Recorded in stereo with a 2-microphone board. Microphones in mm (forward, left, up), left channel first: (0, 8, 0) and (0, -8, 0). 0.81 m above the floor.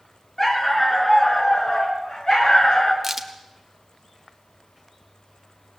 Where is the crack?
15° right (ahead or behind), 1.6 m.